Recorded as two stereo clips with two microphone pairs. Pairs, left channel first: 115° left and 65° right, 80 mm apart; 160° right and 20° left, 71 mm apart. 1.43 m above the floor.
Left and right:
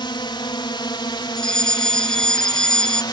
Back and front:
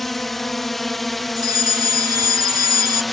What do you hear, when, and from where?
0.0 s a drone: 110° left
1.4 s a fire alarm: 30° left